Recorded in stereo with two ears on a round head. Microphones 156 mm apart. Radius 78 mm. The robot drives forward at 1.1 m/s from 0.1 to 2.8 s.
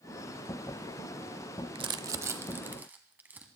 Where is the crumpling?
30° right (ahead or behind), 0.6 m; by 3.5 s 10° right (ahead or behind), 1.6 m.